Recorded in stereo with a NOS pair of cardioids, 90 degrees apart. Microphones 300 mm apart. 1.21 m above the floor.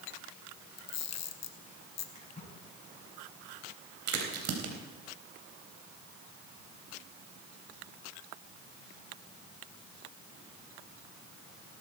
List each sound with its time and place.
0.8 s a camera shutter: 65° left, 1.3 m
2.1 s a splash: 25° left, 7 m
4.1 s a crack: 70° right, 3.5 m